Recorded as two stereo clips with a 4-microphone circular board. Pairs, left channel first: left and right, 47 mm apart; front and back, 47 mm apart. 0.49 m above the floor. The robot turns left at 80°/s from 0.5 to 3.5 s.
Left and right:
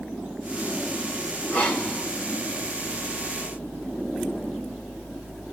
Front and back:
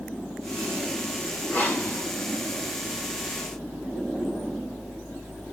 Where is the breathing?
45° left, 1.8 m; by 2.0 s straight ahead, 1.8 m.